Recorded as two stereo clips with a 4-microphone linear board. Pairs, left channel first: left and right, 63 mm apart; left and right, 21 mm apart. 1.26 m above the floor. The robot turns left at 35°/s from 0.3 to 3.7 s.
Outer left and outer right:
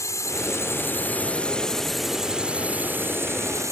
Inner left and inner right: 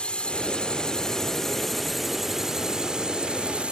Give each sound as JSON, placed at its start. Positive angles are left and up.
{"t": 0.0, "sound": "a drone", "azimuth_deg": 60}